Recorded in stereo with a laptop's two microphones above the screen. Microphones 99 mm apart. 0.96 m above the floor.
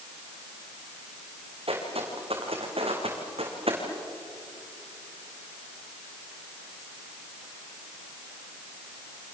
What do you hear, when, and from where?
1.7 s footsteps: 75° right (ahead or behind), 4.5 m